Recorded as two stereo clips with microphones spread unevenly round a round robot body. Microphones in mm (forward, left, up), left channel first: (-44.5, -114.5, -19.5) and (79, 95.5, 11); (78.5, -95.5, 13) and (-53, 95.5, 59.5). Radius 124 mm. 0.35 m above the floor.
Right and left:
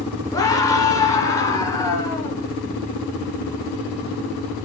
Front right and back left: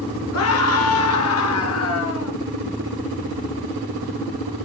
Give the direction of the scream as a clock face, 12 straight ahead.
2 o'clock.